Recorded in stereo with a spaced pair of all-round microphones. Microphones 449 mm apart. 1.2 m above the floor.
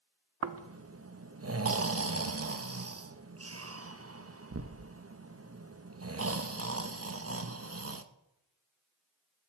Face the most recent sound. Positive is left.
turn(degrees=-30)  # may be behind; listen again after turning